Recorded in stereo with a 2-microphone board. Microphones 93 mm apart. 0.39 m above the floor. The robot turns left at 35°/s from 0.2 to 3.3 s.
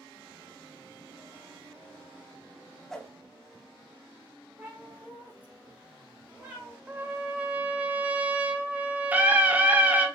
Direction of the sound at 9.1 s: 15° right (ahead or behind).